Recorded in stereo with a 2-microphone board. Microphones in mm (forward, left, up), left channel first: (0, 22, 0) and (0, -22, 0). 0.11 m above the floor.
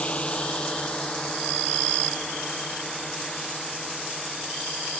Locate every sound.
0.0 s a drone: 30° left (ahead or behind); by 5.0 s centre (ahead or behind)